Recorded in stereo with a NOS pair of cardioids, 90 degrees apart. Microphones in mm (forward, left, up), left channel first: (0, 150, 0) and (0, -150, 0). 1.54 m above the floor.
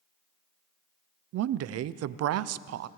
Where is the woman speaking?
60° right, 0.5 m.